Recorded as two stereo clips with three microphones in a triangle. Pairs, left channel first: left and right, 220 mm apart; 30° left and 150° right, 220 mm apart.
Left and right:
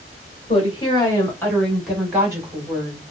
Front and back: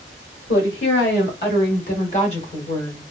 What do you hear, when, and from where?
0.5 s a woman speaking: 30° left, 1.8 m; by 3.0 s 40° right, 1.5 m